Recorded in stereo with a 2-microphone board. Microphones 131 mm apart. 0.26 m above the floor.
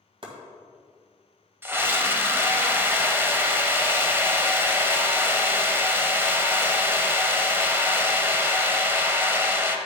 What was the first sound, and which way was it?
Chopping, 40° right (ahead or behind).